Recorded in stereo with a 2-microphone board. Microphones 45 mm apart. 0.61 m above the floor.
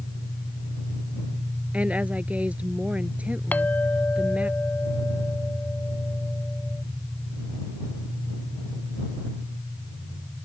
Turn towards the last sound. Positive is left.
turn(degrees=40)  # may be behind; listen again after turning